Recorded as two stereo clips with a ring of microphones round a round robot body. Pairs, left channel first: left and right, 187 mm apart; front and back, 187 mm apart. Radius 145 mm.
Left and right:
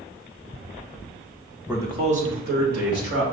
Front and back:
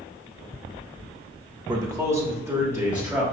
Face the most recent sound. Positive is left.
turn(degrees=-95)